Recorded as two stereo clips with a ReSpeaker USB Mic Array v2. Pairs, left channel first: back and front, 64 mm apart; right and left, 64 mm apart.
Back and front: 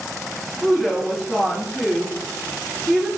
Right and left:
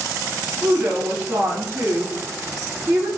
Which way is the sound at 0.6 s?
60° left.